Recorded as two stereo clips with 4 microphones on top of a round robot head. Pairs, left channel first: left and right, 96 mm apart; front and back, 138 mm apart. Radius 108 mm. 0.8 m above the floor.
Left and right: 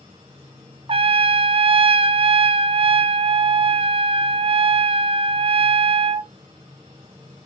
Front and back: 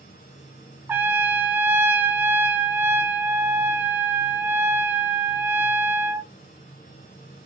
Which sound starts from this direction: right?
A trumpet, at 0.9 s.